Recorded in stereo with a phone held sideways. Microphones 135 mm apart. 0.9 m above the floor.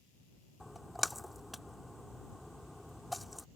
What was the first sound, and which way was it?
A splash, centre (ahead or behind).